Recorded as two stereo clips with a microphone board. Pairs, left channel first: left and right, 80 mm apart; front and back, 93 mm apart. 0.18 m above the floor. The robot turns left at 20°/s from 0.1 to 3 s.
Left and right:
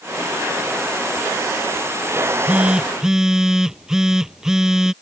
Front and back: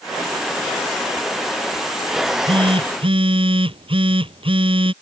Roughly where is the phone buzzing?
Behind right.